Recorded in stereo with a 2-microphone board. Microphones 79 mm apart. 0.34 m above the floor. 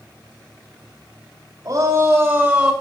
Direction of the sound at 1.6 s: 40° right (ahead or behind).